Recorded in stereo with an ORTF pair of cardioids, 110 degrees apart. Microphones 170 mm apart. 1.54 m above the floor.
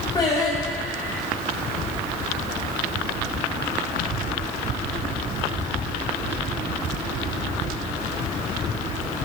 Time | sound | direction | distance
0.1 | singing | 25° left | 7 m